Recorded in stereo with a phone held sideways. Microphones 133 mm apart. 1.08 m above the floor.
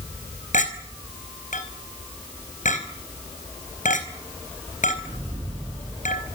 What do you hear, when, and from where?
0.5 s a clink: 70° left (ahead or behind), 4.5 m